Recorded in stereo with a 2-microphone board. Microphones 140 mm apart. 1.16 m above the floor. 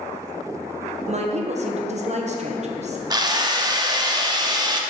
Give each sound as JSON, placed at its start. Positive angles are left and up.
{"t": 1.1, "sound": "a woman speaking", "side_deg": -50, "distance_m": 0.8}
{"t": 3.1, "sound": "a drill", "side_deg": -25, "distance_m": 0.6}